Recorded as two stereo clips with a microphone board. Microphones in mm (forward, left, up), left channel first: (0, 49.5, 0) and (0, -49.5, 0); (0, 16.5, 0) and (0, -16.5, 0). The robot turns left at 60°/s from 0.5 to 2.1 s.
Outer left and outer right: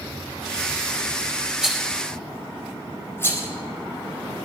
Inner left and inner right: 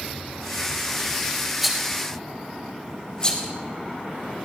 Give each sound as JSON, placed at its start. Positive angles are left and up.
{"t": 1.6, "sound": "a rattle", "side_deg": -10, "distance_m": 4.5}